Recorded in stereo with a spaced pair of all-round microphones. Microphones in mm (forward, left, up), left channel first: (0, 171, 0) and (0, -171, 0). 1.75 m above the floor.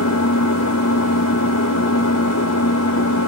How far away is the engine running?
About 1.8 m.